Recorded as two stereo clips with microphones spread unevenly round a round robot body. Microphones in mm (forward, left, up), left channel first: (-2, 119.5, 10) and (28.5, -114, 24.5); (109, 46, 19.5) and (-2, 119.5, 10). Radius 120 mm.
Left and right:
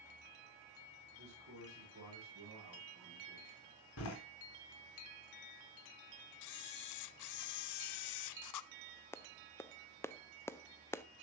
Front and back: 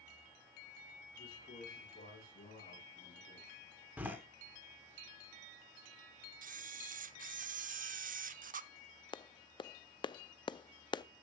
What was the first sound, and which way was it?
A man speaking, 45° right.